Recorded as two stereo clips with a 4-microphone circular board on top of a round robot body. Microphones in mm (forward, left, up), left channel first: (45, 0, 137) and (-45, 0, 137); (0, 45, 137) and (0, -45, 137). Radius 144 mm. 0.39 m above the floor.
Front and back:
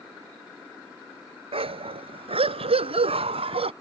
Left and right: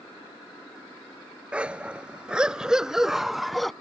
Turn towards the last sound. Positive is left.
turn(degrees=180)